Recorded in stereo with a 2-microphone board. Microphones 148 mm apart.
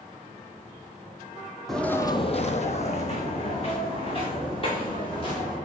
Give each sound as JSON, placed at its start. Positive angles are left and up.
{"t": 1.7, "sound": "footsteps", "side_deg": 0, "distance_m": 0.9}